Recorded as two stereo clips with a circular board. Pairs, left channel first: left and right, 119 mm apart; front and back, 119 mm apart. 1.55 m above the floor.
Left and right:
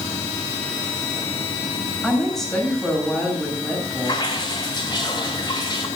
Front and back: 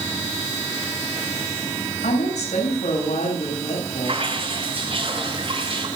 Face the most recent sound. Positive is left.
turn(degrees=140)